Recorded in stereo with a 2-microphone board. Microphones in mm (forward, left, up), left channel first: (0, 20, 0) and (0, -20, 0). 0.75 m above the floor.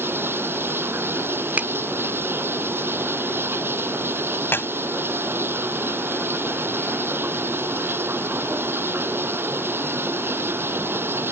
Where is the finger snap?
40° right (ahead or behind).